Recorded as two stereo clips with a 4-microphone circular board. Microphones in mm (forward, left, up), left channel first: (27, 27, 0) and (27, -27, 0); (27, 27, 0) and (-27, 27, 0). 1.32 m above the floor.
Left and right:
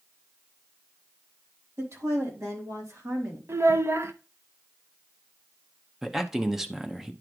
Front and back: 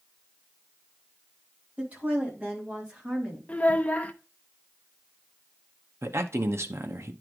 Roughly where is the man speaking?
Behind.